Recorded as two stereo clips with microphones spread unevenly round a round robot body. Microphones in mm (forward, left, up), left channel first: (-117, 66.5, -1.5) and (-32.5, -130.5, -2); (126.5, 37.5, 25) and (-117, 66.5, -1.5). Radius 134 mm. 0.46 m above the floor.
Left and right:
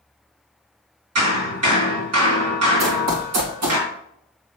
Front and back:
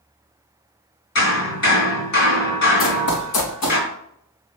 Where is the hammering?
55° right, 3.5 m.